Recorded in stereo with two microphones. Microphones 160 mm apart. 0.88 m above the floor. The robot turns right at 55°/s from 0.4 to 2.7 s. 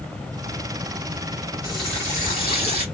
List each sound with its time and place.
1.6 s a running tap: 25° left, 1.6 m; by 2.9 s 80° left, 1.6 m